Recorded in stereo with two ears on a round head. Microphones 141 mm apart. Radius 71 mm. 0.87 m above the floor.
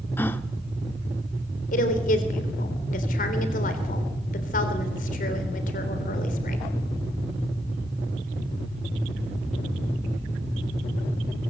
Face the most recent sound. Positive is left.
turn(degrees=55)  # may be behind; listen again after turning